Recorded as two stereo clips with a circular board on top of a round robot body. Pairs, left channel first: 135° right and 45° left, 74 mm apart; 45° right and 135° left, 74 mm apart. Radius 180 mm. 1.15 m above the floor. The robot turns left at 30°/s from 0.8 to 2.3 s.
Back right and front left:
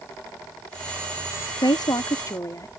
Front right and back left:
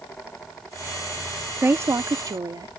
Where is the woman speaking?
165° right; by 2.7 s 175° left.